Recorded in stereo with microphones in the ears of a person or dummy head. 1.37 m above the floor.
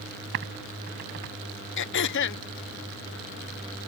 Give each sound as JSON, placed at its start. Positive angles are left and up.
{"t": 0.3, "sound": "typing on a keyboard", "side_deg": -55}
{"t": 1.8, "sound": "throat clearing", "side_deg": 55}